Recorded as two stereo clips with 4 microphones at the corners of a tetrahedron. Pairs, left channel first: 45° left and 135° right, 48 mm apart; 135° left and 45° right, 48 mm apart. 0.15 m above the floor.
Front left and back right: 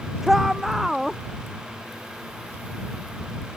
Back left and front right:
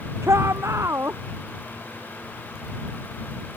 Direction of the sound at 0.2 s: 50° right.